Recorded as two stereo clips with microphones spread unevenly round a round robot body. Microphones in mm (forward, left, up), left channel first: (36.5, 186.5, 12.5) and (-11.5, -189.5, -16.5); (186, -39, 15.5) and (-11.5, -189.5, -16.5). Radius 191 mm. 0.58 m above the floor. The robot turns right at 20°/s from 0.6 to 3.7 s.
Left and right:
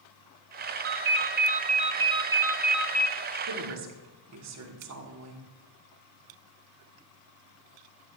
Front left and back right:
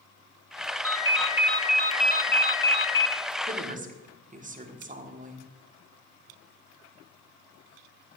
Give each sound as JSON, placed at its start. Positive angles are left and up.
{"t": 0.8, "sound": "a ringtone", "azimuth_deg": -45, "distance_m": 1.0}
{"t": 3.5, "sound": "a woman speaking", "azimuth_deg": -115, "distance_m": 1.6}